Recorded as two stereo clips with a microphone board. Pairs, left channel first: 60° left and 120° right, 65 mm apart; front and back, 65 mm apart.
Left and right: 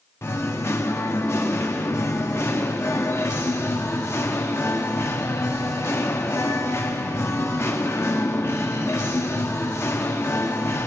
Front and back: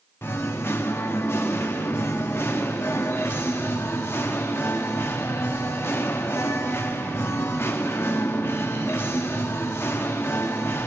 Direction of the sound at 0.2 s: 35° left.